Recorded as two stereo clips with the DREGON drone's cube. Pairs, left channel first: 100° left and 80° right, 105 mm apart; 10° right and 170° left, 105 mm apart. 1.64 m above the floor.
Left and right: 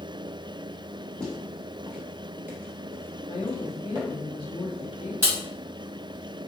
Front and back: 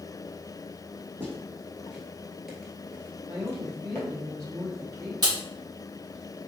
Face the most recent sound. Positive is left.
turn(degrees=-145)